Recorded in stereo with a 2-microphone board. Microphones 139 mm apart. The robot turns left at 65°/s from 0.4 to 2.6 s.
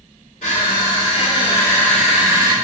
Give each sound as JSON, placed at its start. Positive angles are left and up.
{"t": 0.4, "sound": "crushing", "azimuth_deg": 105, "distance_m": 2.5}